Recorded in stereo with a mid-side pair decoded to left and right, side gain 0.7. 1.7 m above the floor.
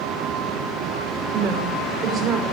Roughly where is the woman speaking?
Ahead right.